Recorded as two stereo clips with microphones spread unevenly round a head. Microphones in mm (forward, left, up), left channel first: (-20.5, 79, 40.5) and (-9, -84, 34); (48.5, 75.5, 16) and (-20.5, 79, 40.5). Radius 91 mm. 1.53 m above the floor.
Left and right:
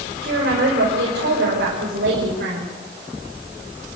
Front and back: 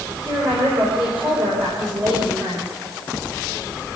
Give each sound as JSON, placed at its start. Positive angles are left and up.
{"t": 0.2, "sound": "a woman speaking", "azimuth_deg": -115, "distance_m": 5.0}